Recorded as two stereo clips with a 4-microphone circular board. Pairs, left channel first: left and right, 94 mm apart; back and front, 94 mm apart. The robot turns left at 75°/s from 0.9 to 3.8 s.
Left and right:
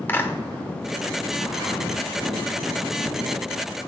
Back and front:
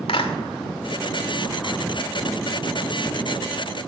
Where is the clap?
160° left, 1.7 m.